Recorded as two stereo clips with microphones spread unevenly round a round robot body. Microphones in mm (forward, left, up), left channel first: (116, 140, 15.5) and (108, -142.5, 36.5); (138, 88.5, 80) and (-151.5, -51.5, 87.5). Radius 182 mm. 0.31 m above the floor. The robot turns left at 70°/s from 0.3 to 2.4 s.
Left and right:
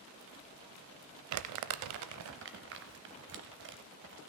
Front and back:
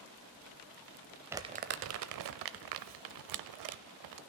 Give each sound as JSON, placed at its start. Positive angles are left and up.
{"t": 1.3, "sound": "crumpling", "azimuth_deg": -70, "distance_m": 0.6}